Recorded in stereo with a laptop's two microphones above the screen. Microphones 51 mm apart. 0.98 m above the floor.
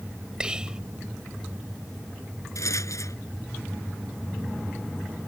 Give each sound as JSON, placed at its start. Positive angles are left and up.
{"t": 0.4, "sound": "whispering", "side_deg": -15}
{"t": 2.5, "sound": "a rattle", "side_deg": 65}